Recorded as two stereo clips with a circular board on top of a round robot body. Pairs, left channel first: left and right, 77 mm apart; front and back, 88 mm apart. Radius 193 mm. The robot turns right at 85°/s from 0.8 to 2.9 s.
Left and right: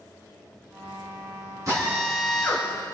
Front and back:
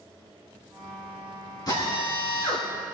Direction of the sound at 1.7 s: 45° right.